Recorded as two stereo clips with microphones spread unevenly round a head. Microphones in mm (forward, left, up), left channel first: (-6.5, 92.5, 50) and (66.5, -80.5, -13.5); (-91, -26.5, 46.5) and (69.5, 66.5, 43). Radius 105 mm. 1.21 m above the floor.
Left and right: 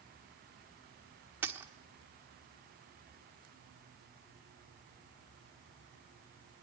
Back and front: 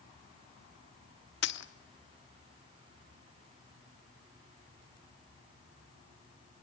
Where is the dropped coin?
160° right, 1.1 m.